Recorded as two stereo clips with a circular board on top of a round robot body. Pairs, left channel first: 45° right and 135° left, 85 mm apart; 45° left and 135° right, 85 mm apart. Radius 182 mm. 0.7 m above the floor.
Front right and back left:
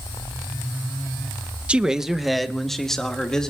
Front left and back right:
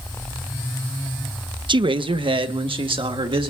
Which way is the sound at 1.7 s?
150° right.